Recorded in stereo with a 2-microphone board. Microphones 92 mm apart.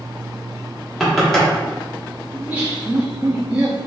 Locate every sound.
1.0 s knocking: 5° left (ahead or behind), 1.5 m
2.3 s laughter: 15° right (ahead or behind), 1.1 m